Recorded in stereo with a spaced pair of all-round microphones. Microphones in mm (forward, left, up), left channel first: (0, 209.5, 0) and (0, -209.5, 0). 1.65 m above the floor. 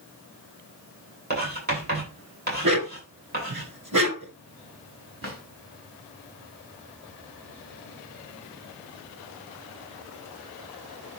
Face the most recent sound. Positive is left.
turn(degrees=-30)  # may be behind; listen again after turning